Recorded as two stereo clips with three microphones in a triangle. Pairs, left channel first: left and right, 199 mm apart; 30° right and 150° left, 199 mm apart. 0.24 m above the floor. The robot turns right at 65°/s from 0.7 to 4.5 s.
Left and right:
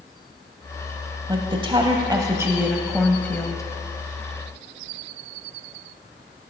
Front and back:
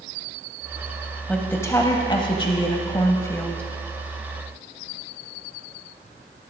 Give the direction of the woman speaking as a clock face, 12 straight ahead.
4 o'clock.